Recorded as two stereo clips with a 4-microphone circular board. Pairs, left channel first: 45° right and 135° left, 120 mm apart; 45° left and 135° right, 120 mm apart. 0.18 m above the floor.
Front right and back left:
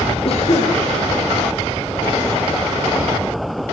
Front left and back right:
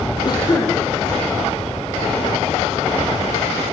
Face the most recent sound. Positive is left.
turn(degrees=-10)